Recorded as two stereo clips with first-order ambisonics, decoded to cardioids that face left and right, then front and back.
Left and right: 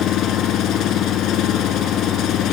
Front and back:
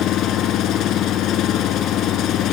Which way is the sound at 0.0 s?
45° left.